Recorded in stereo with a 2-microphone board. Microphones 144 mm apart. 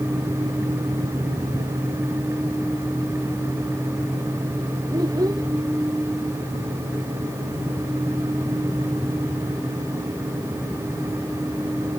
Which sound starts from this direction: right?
A child speaking, at 4.9 s.